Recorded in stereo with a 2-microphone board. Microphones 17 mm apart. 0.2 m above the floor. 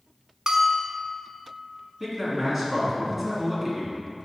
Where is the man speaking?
10° right (ahead or behind), 2 m.